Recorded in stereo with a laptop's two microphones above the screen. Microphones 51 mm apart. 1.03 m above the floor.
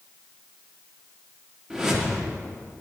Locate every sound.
1.7 s a whoosh: 10° right (ahead or behind), 1.2 m